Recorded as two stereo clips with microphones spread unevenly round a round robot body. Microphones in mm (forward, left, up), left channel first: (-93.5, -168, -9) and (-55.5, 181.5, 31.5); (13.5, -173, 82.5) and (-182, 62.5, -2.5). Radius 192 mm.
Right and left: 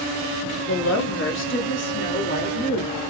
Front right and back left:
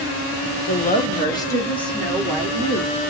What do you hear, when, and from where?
0.7 s a woman speaking: 115° right, 1.3 m; by 2.9 s 160° right, 2 m